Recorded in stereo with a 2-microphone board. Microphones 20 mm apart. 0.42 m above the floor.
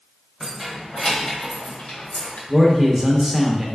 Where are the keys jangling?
5° right (ahead or behind), 1.5 m; by 2.4 s 60° left (ahead or behind), 1.5 m.